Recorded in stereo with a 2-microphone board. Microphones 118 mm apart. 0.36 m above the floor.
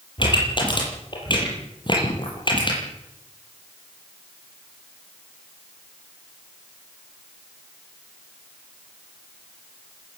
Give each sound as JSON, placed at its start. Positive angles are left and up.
{"t": 0.2, "sound": "a pop", "side_deg": 40, "distance_m": 8.0}